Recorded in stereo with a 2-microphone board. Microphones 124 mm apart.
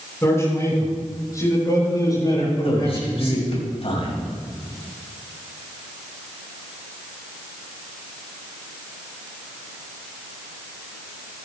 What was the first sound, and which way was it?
A man speaking, 20° left (ahead or behind).